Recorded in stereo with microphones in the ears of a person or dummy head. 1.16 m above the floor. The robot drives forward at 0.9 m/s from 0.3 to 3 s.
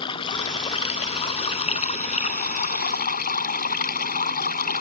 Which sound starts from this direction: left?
Running water, at 0.0 s.